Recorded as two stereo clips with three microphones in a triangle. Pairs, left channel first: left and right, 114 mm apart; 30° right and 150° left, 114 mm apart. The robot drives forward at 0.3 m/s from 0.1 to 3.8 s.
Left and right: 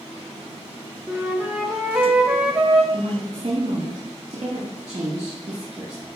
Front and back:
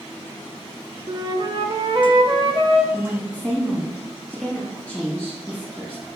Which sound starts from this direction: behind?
A flute, at 1.1 s.